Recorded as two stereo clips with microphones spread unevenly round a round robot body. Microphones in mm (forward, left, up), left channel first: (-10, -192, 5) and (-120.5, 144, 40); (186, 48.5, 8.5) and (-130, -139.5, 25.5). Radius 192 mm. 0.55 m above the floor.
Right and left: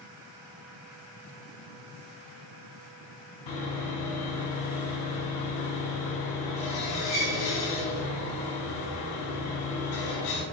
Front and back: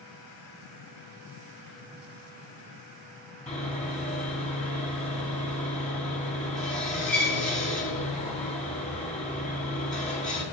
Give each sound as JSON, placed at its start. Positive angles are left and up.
{"t": 3.5, "sound": "sawing", "azimuth_deg": -40, "distance_m": 4.0}